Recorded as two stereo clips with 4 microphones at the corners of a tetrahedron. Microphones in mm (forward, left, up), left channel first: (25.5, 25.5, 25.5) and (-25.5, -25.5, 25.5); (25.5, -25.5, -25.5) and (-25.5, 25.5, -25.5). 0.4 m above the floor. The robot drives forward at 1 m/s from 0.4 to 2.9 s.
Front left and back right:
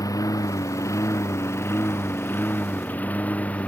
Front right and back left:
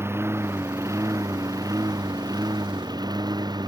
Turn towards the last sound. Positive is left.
turn(degrees=115)